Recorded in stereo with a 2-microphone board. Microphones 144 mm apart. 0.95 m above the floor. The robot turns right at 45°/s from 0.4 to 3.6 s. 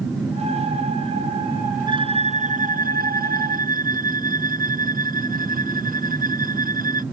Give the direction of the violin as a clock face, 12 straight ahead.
5 o'clock.